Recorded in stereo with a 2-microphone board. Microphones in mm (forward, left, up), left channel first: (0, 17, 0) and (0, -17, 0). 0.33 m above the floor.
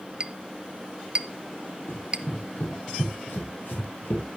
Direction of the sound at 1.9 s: 80° left.